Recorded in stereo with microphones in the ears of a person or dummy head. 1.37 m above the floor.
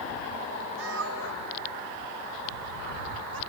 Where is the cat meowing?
75° right (ahead or behind); by 3.4 s 80° right.